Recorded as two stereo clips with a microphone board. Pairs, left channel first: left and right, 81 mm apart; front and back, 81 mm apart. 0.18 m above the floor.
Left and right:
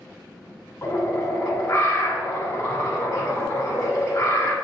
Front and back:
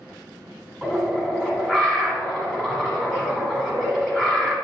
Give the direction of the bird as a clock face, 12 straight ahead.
9 o'clock.